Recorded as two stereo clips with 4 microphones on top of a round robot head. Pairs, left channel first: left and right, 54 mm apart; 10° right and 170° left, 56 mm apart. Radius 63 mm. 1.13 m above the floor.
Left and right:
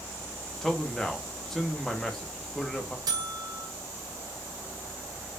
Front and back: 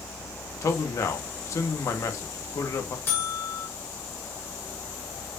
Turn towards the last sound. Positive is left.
turn(degrees=-70)